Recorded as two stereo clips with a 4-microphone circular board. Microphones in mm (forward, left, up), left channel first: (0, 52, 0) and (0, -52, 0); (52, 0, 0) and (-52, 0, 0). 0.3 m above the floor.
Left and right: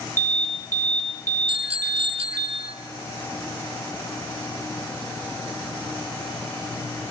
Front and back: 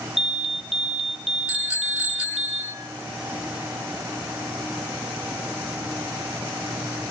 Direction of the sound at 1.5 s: 100° right.